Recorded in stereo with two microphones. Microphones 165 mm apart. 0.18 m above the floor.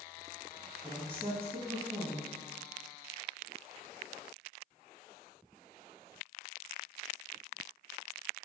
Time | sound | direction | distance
0.8 | a woman speaking | 10° left (ahead or behind) | 1.5 m